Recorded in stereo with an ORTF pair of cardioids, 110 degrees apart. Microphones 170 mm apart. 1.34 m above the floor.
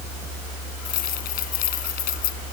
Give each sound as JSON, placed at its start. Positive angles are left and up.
{"t": 0.8, "sound": "keys jangling", "azimuth_deg": 65}